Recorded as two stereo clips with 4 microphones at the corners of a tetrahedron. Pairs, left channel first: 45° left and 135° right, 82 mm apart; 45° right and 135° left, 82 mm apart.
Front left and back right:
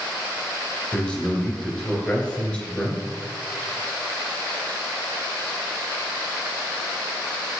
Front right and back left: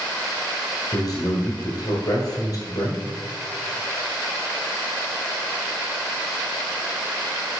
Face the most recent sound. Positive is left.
turn(degrees=-30)